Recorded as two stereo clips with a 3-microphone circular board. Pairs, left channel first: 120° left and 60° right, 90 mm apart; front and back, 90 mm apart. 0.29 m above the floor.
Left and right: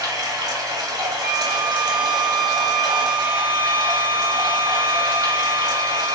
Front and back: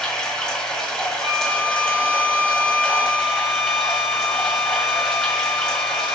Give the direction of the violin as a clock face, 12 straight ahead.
6 o'clock.